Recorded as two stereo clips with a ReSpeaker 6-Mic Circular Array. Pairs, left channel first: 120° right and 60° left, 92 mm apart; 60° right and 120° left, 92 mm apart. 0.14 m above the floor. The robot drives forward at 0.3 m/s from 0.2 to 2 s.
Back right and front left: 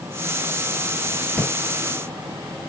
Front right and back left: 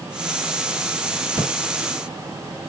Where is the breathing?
160° left, 2 m.